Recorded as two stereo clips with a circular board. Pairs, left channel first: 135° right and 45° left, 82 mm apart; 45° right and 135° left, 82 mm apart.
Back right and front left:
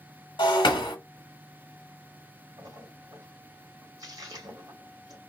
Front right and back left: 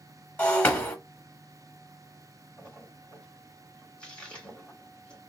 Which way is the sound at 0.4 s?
115° right.